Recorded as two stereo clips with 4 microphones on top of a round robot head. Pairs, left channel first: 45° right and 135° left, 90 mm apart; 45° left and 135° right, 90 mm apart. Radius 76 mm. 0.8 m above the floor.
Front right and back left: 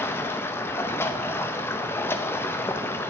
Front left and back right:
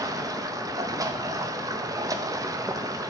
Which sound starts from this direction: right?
Running water, at 0.0 s.